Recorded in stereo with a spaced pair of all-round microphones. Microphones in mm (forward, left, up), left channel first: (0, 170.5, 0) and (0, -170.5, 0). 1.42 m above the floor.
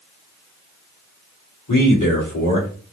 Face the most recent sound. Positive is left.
turn(degrees=65)  # may be behind; listen again after turning